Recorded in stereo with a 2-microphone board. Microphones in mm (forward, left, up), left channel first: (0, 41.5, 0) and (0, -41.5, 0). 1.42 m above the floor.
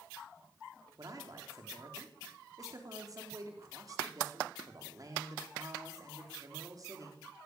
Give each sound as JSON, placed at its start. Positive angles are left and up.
{"t": 1.0, "sound": "a man speaking", "side_deg": -45, "distance_m": 4.5}